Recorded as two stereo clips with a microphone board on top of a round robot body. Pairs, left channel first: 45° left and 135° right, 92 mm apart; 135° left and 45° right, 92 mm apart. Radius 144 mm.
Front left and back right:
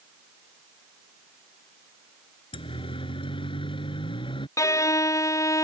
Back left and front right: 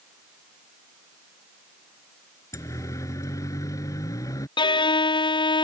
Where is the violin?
100° left.